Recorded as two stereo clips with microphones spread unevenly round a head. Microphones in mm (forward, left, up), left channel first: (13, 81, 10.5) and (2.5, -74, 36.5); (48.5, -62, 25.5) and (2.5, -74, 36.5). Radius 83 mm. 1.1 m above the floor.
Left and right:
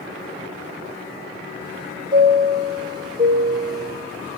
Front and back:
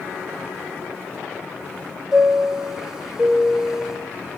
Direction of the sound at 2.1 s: 120° right.